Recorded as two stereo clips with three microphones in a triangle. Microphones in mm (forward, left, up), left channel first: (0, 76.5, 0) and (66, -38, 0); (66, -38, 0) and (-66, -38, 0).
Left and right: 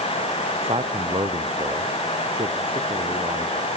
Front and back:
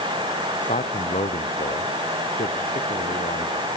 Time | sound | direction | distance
0.6 | a man speaking | 15° right | ?